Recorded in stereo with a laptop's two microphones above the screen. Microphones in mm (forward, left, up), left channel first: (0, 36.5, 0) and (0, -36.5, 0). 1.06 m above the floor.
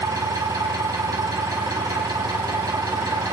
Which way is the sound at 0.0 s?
70° right (ahead or behind).